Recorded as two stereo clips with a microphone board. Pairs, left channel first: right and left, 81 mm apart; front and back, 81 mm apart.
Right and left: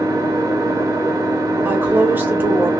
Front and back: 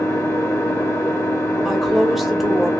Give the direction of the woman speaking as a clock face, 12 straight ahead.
9 o'clock.